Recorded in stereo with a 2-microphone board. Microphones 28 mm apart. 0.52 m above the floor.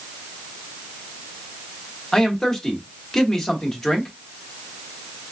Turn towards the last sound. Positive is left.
turn(degrees=15)  # may be behind; listen again after turning